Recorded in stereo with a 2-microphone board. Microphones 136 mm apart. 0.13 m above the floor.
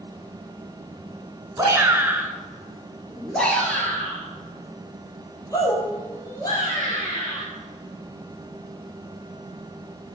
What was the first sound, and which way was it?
A shout, 25° right (ahead or behind).